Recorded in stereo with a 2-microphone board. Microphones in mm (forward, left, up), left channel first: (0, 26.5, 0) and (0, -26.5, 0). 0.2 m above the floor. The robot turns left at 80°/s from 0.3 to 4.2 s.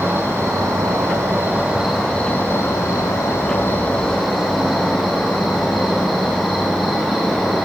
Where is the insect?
50° right, 3 m; by 7.7 s straight ahead, 3 m.